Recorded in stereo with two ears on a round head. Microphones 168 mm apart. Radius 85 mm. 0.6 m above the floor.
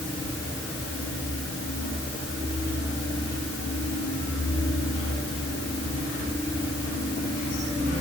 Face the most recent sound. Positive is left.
No sound to turn to.